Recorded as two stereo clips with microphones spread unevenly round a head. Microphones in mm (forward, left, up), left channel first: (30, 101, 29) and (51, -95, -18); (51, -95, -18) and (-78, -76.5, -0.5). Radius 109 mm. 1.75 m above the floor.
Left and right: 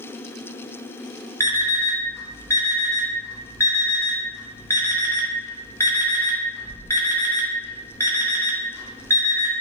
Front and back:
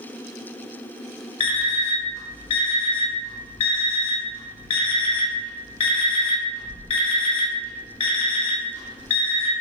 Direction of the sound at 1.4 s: 40° left.